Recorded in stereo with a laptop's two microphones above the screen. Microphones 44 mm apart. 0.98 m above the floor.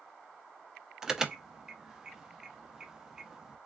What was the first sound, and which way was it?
An alarm, 10° right (ahead or behind).